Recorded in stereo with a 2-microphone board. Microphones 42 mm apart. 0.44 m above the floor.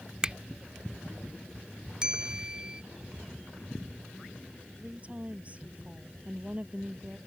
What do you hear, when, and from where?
0.2 s a finger snap: 20° right (ahead or behind)
2.0 s a bell: 20° right (ahead or behind)
4.8 s a woman speaking: 30° right (ahead or behind)